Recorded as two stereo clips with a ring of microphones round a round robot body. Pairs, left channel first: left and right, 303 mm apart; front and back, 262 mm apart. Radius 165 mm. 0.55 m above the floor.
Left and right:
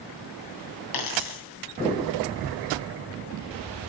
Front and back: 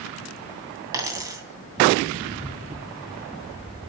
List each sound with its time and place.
0.9 s a dropped coin: 100° left, 2.5 m